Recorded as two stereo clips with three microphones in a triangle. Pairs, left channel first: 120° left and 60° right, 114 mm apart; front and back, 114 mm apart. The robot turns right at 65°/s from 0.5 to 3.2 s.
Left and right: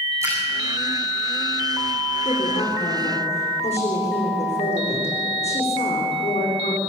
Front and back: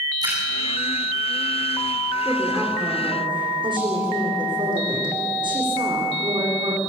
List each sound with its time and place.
0.2 s a splash: 125° right, 7.5 m
2.2 s a woman speaking: 75° left, 8 m; by 6.8 s 135° left, 8 m